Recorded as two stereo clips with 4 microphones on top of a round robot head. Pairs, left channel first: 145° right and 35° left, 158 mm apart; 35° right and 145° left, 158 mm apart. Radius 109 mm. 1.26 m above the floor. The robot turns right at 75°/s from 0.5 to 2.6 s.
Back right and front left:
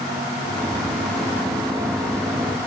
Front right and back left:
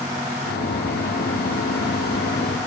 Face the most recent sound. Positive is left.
No sound to turn to.